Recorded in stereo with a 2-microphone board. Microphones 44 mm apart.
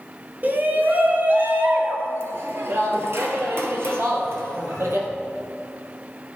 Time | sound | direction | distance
0.4 | a shout | 40° right (ahead or behind) | 1.8 m